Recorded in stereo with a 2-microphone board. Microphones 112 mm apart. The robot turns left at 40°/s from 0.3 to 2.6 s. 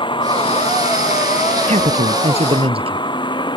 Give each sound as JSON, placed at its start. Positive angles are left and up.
{"t": 0.0, "sound": "a vehicle", "azimuth_deg": 135}
{"t": 1.7, "sound": "a man speaking", "azimuth_deg": -90}